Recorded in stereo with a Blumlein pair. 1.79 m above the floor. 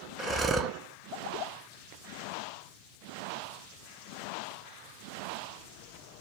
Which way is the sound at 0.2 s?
20° right.